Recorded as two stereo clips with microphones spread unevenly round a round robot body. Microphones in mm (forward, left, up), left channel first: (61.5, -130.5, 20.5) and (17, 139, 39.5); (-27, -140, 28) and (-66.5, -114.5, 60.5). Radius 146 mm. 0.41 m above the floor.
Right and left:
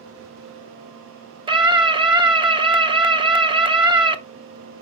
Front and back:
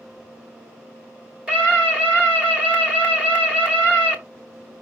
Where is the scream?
35° left, 1.0 m.